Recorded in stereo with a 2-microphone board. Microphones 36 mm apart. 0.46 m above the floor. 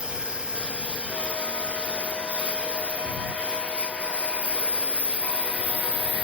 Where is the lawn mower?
30° right (ahead or behind); by 6.2 s 35° right (ahead or behind).